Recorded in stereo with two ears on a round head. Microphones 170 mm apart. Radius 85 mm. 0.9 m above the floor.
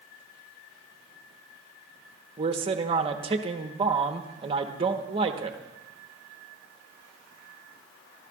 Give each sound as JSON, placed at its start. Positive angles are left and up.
{"t": 2.4, "sound": "a man speaking", "side_deg": -30, "distance_m": 1.0}